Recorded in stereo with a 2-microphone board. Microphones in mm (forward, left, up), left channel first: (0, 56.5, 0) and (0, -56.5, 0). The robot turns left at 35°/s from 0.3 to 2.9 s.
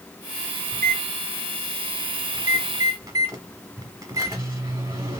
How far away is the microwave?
About 1.0 m.